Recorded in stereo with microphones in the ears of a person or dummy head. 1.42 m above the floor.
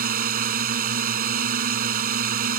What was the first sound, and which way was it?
A drone, 50° right (ahead or behind).